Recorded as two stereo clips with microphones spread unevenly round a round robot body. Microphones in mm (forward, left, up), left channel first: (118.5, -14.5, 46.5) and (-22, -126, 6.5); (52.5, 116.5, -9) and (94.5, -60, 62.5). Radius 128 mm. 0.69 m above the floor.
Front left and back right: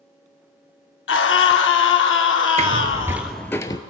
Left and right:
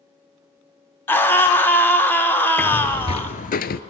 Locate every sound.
1.1 s a scream: 35° left, 1.9 m
2.6 s footsteps: 125° right, 0.7 m; by 3.8 s 65° left, 0.8 m